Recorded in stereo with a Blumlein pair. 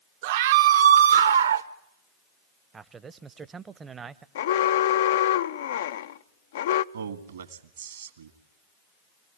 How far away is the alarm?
About 0.6 m.